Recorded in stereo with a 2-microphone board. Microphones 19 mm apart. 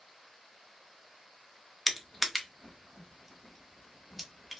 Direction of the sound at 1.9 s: Centre (ahead or behind).